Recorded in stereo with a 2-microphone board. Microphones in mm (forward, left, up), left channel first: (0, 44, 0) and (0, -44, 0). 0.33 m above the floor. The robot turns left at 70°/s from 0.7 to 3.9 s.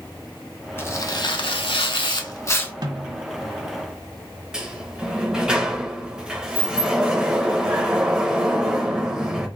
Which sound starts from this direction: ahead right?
A snare drum, at 2.8 s.